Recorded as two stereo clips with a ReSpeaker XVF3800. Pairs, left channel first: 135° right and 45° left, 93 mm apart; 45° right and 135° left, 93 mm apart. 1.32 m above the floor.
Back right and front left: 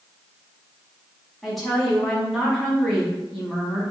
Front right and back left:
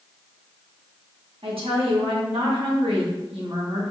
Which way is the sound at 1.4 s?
135° left.